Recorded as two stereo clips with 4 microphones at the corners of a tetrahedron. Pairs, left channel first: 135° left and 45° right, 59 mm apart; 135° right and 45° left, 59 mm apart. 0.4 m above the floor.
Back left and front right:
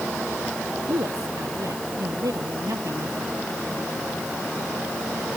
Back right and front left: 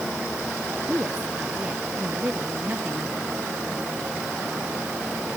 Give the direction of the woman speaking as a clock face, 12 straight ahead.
1 o'clock.